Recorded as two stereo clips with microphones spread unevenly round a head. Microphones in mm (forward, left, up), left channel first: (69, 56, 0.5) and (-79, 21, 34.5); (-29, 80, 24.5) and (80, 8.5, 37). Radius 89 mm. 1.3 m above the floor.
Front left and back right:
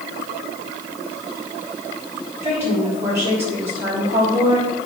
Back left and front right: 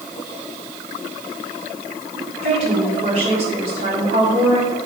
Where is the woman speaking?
85° right, 4 m.